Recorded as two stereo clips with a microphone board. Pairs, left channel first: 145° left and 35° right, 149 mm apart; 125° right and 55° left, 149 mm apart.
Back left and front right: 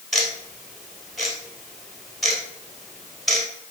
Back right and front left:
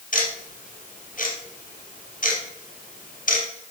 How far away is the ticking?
About 2 m.